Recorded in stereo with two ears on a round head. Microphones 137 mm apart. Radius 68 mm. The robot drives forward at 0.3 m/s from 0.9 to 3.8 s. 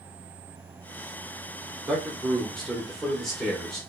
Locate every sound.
1.9 s a man speaking: 5° left (ahead or behind), 0.7 m; by 3.8 s centre (ahead or behind), 1.1 m